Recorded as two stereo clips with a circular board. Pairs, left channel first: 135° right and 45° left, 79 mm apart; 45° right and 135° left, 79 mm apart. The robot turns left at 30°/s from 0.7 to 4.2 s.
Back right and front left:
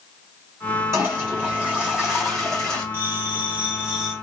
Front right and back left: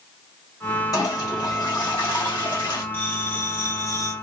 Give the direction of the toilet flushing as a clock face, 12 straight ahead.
12 o'clock.